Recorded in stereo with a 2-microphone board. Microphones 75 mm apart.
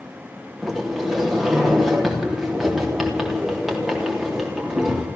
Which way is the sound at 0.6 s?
5° right (ahead or behind).